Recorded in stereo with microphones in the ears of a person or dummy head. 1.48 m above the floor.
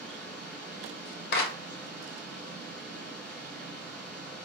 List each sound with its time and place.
0.0 s a fan: 5° left (ahead or behind), 1.7 m
1.3 s a clap: 60° left (ahead or behind), 0.6 m